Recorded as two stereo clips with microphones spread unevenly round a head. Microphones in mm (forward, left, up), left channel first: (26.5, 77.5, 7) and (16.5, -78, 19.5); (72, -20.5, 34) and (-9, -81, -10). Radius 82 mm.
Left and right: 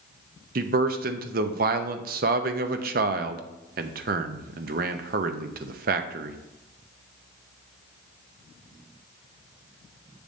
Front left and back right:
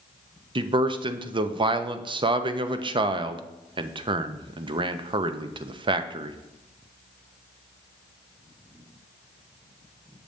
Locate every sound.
0.6 s a man speaking: 90° right, 0.7 m